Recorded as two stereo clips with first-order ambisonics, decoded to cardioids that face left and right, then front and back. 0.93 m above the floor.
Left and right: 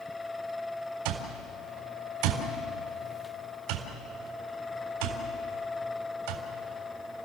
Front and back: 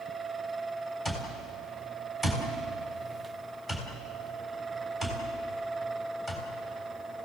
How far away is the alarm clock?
About 3.5 m.